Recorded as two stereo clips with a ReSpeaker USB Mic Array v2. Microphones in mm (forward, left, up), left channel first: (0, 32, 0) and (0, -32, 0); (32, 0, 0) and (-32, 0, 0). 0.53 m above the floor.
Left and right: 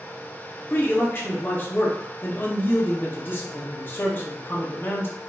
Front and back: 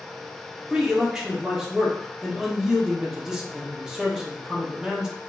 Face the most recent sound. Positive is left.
turn(degrees=110)